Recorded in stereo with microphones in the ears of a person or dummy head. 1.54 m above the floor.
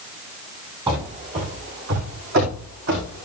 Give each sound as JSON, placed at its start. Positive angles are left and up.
{"t": 0.9, "sound": "running footsteps", "side_deg": -20, "distance_m": 2.0}